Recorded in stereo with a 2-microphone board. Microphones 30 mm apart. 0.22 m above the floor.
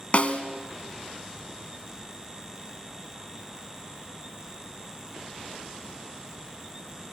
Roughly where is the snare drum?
Left.